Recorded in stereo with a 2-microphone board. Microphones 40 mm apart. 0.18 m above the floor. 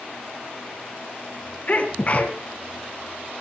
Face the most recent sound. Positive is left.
turn(degrees=40)  # may be behind; listen again after turning